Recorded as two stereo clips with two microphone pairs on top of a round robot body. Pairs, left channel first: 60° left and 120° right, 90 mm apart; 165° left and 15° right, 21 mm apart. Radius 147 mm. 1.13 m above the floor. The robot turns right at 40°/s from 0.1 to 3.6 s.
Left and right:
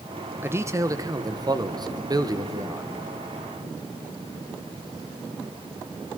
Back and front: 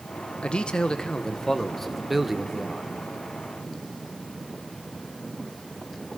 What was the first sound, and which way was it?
A man speaking, 175° right.